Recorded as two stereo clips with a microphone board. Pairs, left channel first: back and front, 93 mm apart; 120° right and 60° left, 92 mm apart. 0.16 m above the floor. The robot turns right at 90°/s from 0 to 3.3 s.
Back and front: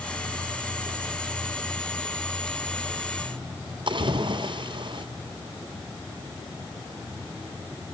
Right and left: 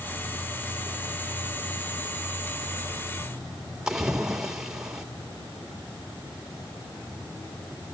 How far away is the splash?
About 2.5 m.